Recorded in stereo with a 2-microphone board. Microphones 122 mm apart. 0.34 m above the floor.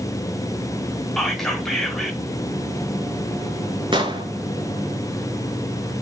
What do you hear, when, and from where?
1.2 s whispering: 5° left (ahead or behind), 1.1 m
3.9 s an explosion: 45° right (ahead or behind), 0.8 m